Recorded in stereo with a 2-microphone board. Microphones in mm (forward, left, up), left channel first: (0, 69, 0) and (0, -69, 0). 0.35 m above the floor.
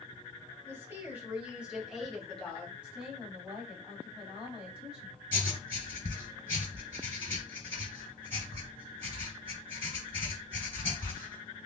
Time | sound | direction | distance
0.7 | a woman speaking | 20° right (ahead or behind) | 2 m
2.8 | a woman speaking | 5° right (ahead or behind) | 2.5 m
5.3 | writing | 15° left (ahead or behind) | 2.5 m